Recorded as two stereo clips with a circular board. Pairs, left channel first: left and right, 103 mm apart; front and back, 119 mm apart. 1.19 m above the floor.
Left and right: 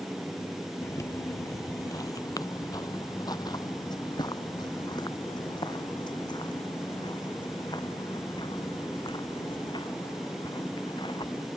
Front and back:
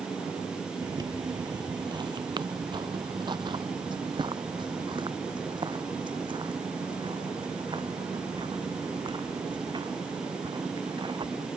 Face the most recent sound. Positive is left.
turn(degrees=130)